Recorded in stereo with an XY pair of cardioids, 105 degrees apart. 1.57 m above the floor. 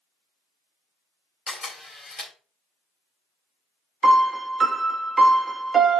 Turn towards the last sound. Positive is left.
turn(degrees=-35)